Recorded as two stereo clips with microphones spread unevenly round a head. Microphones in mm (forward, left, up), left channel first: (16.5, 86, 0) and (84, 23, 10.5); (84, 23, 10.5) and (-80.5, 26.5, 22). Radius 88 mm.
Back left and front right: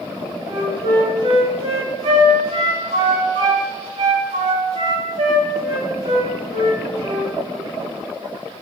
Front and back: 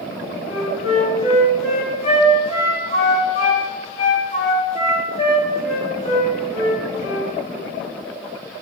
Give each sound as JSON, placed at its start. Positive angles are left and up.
{"t": 0.5, "sound": "a flute", "azimuth_deg": -60, "distance_m": 4.0}